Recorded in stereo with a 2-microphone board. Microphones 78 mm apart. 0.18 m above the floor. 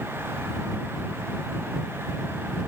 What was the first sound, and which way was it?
Only background noise.